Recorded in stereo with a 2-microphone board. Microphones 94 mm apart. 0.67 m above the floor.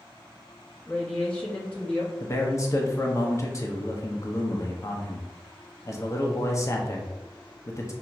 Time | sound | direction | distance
0.9 | a woman speaking | 15° left (ahead or behind) | 0.7 m
2.2 | a man speaking | 30° left (ahead or behind) | 0.6 m